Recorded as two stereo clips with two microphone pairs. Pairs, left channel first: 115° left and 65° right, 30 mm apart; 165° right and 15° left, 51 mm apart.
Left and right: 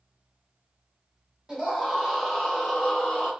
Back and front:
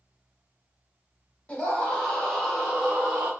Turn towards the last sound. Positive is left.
turn(degrees=70)